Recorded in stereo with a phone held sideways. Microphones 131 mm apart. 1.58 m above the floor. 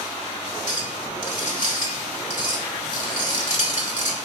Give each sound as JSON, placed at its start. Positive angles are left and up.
{"t": 0.7, "sound": "a clink", "side_deg": 75, "distance_m": 3.0}